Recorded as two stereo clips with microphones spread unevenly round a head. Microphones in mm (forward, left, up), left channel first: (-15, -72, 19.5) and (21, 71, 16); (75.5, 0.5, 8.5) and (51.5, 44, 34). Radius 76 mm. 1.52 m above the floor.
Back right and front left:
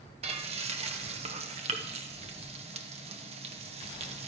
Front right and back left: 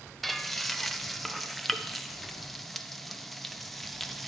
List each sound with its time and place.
0.2 s frying: 25° left, 1.0 m